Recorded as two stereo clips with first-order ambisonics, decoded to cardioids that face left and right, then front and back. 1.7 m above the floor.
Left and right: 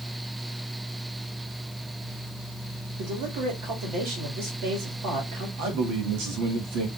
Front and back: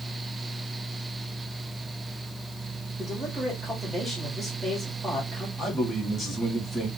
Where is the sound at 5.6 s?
85° right, 1.5 m.